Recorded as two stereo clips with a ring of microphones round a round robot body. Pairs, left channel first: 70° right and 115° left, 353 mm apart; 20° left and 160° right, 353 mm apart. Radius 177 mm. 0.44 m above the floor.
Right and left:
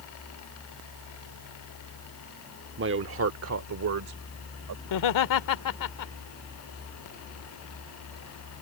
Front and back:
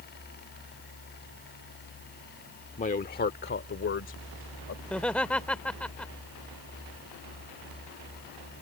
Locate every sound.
2.8 s a man speaking: 80° left; by 4.8 s 75° left
4.8 s laughter: 65° right